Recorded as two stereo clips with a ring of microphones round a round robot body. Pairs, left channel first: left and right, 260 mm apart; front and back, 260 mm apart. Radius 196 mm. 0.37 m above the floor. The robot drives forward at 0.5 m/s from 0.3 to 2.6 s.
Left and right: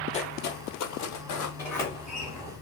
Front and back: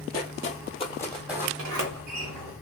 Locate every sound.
0.1 s footsteps: 25° left, 0.8 m; by 1.5 s 100° left, 1.2 m
1.6 s a sliding door: 170° left, 0.9 m; by 2.5 s 175° left, 1.3 m